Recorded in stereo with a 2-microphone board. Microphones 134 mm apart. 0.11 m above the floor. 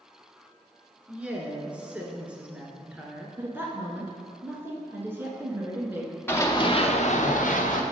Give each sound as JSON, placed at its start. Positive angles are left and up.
{"t": 1.1, "sound": "a woman speaking", "side_deg": -10, "distance_m": 1.3}
{"t": 3.4, "sound": "a woman speaking", "side_deg": -15, "distance_m": 1.2}
{"t": 6.3, "sound": "running footsteps", "side_deg": 15, "distance_m": 1.1}